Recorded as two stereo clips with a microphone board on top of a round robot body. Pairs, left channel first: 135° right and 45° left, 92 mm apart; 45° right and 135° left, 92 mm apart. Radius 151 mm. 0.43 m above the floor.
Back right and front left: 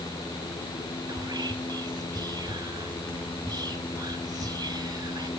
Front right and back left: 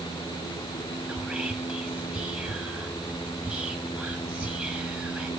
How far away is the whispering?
About 1.0 m.